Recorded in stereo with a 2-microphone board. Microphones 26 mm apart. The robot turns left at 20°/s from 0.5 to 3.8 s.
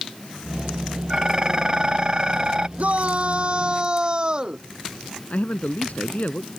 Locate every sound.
1.1 s dishes clattering: 55° right; by 2.7 s 85° right
2.8 s a shout: 55° right (ahead or behind); by 4.6 s 35° right (ahead or behind)
5.3 s a man speaking: 65° left (ahead or behind)